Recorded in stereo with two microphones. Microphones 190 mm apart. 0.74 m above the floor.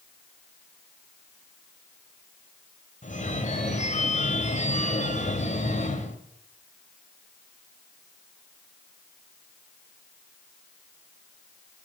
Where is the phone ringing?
40° left (ahead or behind), 2 m.